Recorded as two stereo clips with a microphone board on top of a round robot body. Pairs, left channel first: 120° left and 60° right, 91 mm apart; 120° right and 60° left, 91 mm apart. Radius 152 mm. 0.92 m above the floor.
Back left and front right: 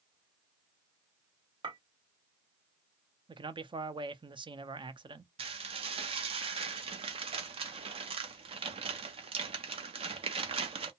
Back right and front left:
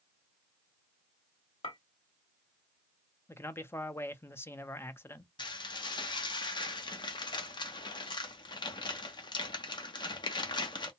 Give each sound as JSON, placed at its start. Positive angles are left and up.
{"t": 1.6, "sound": "a clink", "azimuth_deg": -95, "distance_m": 1.8}
{"t": 3.3, "sound": "a man speaking", "azimuth_deg": -60, "distance_m": 0.7}
{"t": 5.4, "sound": "dishes clattering", "azimuth_deg": -80, "distance_m": 0.6}